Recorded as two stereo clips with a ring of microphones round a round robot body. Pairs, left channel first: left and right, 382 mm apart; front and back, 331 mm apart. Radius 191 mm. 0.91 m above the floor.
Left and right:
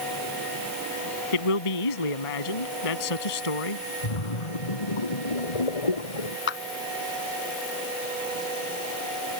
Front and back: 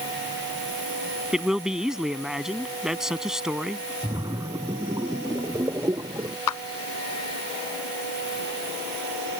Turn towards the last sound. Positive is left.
turn(degrees=30)